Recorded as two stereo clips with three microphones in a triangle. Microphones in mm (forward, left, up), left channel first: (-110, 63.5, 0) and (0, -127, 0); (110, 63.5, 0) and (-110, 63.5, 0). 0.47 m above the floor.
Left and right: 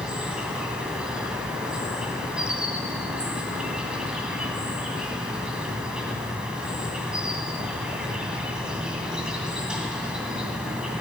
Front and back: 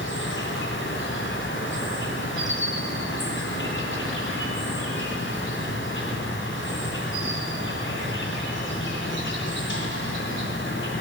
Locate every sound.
0.0 s an insect: 25° left, 2.0 m